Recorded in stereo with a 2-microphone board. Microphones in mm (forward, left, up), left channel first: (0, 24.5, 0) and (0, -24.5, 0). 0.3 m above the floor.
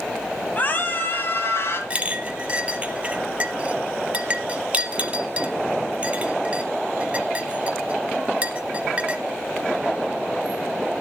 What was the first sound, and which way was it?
A scream, 35° left (ahead or behind).